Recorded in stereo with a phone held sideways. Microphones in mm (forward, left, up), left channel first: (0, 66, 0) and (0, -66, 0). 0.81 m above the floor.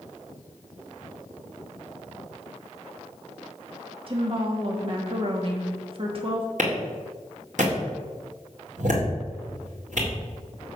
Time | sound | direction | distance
4.1 | a woman speaking | 45° right (ahead or behind) | 1.3 m
6.6 | a clap | 70° right (ahead or behind) | 2 m